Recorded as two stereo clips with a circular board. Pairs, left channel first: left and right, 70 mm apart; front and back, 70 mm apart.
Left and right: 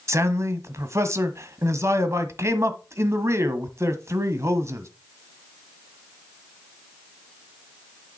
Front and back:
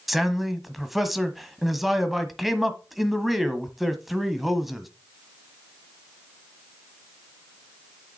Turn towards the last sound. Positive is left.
turn(degrees=-90)